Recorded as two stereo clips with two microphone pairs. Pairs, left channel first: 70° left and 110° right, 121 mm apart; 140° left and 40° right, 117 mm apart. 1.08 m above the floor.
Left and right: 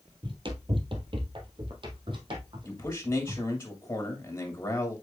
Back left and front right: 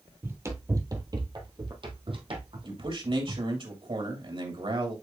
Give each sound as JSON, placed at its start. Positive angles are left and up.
{"t": 0.2, "sound": "running footsteps", "azimuth_deg": -100, "distance_m": 1.4}
{"t": 2.6, "sound": "a man speaking", "azimuth_deg": 0, "distance_m": 2.5}